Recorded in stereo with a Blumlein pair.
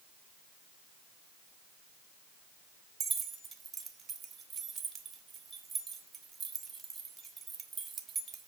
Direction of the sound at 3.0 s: 20° right.